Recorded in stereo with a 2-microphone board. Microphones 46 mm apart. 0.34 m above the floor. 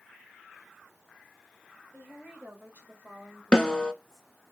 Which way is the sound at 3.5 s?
20° left (ahead or behind).